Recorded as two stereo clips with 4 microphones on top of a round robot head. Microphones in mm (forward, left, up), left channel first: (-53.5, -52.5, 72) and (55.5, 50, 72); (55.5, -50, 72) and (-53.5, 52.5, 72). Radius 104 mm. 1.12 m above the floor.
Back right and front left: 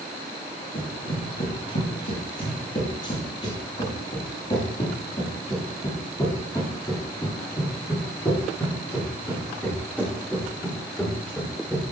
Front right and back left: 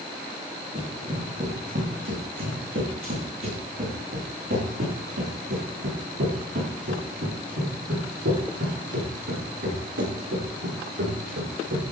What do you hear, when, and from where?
0.8 s running footsteps: straight behind, 5.5 m; by 11.8 s 140° left, 9.5 m